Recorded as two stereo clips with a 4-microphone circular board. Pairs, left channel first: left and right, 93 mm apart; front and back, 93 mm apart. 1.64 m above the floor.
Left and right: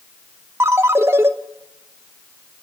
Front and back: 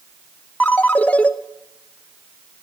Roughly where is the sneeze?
No sneeze in this recording.